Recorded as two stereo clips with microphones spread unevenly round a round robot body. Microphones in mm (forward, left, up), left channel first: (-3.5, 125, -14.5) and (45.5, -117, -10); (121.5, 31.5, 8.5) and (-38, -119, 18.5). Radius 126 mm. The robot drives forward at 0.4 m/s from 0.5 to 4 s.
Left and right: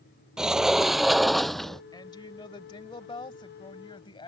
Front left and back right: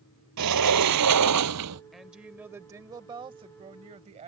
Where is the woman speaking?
130° left; by 4.3 s 165° left.